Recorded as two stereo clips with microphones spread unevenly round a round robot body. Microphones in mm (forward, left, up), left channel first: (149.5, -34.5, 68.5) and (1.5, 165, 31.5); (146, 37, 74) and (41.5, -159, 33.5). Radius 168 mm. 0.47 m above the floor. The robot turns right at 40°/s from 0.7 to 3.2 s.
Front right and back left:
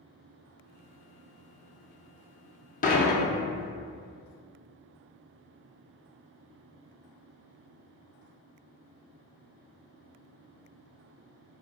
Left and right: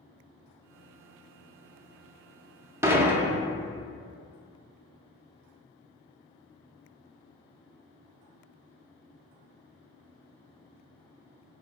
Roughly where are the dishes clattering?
Right.